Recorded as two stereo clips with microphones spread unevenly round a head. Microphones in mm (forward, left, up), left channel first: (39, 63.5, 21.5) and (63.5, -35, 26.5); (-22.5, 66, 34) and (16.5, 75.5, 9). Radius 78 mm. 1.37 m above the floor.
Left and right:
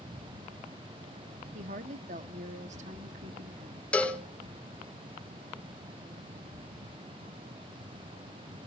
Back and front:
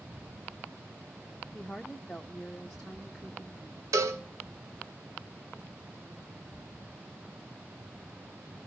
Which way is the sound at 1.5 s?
90° right.